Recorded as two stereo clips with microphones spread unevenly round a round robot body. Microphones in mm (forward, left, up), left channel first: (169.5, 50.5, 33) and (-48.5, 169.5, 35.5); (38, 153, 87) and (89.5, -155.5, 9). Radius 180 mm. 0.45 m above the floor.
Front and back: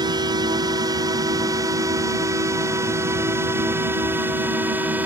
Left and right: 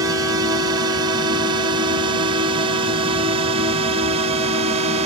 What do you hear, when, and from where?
0.0 s a drone: 140° right; by 5.1 s 125° right